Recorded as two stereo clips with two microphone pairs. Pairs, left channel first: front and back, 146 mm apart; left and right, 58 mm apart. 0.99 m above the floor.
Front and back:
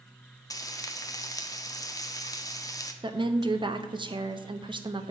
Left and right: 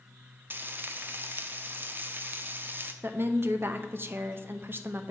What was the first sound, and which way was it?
Frying, 50° right.